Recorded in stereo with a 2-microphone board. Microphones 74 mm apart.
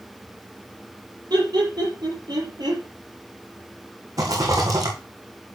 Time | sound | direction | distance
1.3 | laughter | 75° right (ahead or behind) | 6.5 m
4.2 | a rattle | 55° right (ahead or behind) | 3.5 m